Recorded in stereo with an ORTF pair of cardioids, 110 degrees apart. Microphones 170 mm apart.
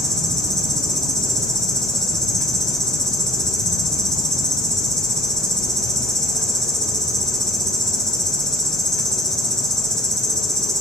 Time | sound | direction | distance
0.0 | an insect | 5° left | 6 m